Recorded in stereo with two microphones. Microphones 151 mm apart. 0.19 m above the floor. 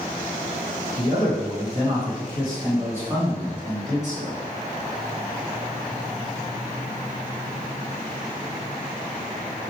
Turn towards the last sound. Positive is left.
turn(degrees=0)  # may be behind; listen again after turning